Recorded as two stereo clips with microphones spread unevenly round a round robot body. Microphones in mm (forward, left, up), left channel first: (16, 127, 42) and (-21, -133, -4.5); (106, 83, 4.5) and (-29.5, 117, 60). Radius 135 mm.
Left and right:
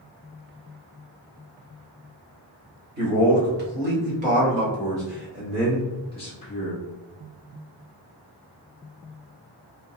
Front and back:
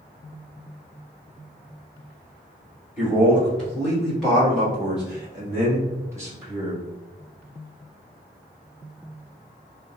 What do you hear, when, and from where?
3.0 s a man speaking: 75° right, 1.9 m; by 6.8 s 80° left, 1.1 m